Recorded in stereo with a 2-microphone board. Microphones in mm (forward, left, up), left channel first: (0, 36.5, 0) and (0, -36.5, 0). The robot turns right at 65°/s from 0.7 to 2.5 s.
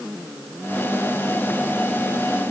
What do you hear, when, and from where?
Only background noise.